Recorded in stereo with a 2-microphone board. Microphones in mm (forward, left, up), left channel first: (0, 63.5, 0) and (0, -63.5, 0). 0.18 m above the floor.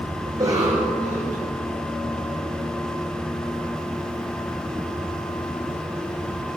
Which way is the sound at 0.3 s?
30° right (ahead or behind).